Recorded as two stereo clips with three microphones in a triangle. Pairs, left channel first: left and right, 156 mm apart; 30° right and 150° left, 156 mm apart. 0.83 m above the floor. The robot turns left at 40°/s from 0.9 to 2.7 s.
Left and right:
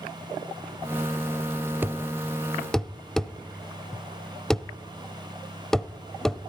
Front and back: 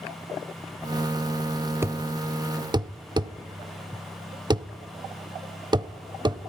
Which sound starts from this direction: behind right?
A thud, at 1.8 s.